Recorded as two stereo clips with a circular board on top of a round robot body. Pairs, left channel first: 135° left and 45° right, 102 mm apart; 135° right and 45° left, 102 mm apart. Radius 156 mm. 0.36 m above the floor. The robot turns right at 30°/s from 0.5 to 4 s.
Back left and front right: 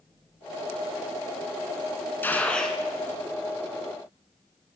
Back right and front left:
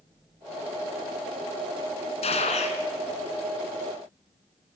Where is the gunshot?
155° right, 2.5 m; by 2.8 s 135° right, 2.5 m.